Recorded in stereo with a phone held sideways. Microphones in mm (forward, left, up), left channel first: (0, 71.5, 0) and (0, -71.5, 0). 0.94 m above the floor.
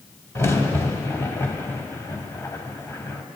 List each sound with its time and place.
0.3 s a crack: 20° left (ahead or behind), 0.9 m